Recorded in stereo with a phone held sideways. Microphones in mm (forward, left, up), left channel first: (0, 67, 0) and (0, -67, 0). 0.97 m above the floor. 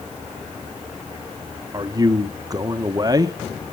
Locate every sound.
1.7 s a man speaking: 30° right (ahead or behind), 0.8 m